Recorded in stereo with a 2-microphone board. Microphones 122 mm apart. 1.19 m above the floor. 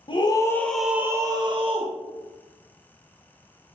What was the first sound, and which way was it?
A scream, 40° left (ahead or behind).